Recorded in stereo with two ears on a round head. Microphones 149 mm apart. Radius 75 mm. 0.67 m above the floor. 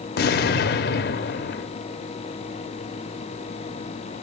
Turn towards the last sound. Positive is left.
turn(degrees=60)  # may be behind; listen again after turning